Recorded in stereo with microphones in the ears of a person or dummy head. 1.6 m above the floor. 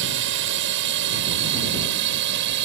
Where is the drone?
65° right (ahead or behind); by 2.7 s 60° right (ahead or behind).